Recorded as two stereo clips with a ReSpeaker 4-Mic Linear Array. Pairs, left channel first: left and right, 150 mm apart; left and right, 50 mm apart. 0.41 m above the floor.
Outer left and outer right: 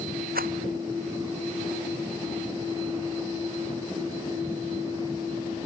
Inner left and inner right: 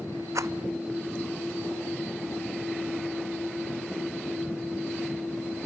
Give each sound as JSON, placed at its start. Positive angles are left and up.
{"t": 0.3, "sound": "a rattle", "side_deg": -85}